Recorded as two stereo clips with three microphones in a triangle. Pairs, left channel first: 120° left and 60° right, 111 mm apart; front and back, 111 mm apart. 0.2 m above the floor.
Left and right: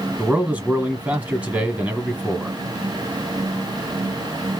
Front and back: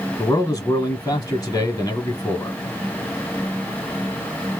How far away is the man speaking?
About 1.3 m.